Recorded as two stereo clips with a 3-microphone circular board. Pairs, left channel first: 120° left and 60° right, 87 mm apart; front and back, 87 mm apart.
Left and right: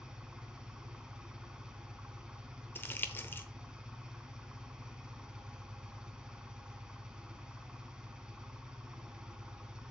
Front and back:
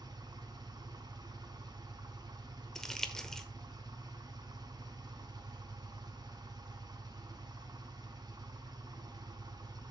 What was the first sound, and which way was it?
An engine running, 140° right.